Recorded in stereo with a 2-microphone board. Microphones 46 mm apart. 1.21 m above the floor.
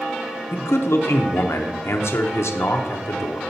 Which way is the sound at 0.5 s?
75° left (ahead or behind).